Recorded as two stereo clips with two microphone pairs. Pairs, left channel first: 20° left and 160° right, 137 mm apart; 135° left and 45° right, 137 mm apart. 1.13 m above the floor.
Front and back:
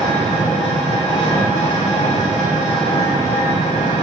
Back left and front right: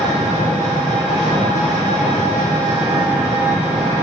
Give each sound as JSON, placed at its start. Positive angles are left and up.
{"t": 0.0, "sound": "an engine running", "azimuth_deg": 5, "distance_m": 3.5}